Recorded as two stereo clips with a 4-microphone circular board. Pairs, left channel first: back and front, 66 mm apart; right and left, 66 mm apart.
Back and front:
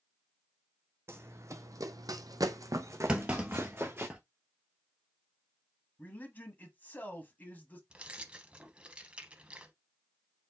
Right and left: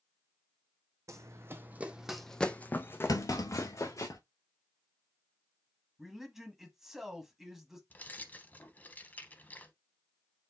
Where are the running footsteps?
50° left, 0.7 m; by 4.1 s 60° right, 1.2 m.